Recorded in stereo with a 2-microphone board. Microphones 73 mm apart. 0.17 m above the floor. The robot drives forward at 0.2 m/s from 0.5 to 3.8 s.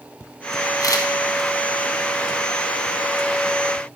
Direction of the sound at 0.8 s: 55° left (ahead or behind).